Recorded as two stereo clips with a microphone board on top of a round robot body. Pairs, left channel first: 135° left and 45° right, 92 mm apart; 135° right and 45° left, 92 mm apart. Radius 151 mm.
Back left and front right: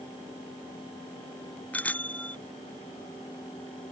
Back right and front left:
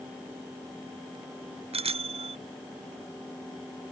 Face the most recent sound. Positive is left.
turn(degrees=60)